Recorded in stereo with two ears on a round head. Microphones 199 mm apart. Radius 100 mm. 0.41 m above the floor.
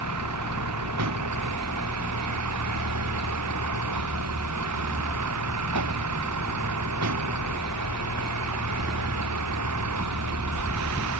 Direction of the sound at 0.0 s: 80° right.